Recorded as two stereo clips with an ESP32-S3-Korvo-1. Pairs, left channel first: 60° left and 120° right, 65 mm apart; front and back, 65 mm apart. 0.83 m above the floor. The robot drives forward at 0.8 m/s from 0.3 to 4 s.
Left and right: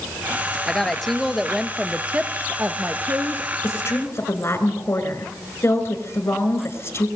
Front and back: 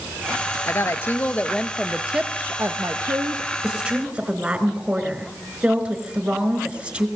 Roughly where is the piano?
I don't hear a piano.